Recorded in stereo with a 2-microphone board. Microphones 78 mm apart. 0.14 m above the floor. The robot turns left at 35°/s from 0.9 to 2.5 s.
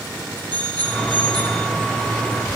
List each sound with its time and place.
0.5 s a bicycle bell: 70° right (ahead or behind), 3.5 m